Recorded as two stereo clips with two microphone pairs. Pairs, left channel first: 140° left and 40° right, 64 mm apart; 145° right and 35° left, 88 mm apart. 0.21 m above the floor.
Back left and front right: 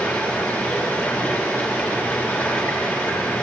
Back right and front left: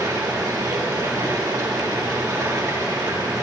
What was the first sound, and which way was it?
Running water, 85° left.